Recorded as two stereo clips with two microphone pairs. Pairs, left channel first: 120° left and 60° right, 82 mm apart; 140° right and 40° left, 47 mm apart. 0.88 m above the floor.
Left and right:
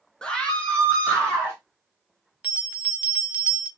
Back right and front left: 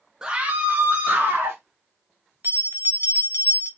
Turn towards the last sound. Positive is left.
turn(degrees=15)